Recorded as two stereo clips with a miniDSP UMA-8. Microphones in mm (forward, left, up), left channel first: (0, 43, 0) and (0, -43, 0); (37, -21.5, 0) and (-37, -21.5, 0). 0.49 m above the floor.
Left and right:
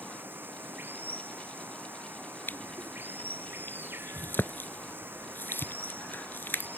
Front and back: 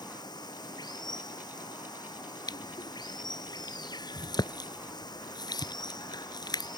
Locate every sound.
0.0 s running water: 25° right
2.5 s crushing: 25° left